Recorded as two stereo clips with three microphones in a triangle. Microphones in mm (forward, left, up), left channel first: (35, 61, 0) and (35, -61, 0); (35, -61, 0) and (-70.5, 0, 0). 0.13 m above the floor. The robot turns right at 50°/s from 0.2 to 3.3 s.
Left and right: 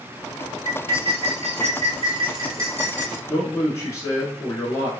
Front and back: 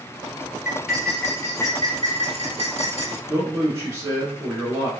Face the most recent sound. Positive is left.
turn(degrees=115)